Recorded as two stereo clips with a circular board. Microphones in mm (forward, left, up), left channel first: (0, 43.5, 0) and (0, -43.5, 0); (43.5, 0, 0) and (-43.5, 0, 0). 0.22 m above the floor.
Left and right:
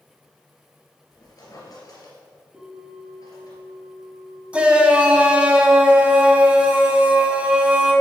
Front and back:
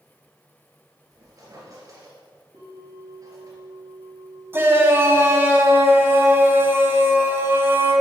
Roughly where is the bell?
Behind.